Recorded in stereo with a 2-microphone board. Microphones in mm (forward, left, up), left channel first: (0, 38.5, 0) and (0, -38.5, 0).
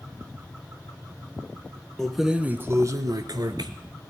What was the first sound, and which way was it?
Keys jangling, 5° left (ahead or behind).